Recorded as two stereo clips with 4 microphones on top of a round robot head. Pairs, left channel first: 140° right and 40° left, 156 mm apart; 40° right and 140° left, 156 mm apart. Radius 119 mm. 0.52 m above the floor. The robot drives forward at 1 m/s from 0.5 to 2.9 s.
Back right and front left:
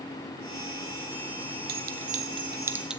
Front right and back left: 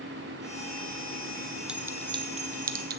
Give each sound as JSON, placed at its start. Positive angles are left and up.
{"t": 1.7, "sound": "a clink", "azimuth_deg": 60, "distance_m": 1.1}